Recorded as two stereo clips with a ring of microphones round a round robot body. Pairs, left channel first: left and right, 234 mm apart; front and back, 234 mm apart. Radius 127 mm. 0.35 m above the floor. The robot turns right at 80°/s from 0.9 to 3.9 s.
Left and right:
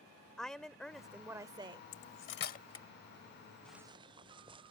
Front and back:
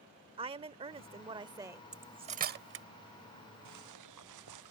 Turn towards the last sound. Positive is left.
turn(degrees=-160)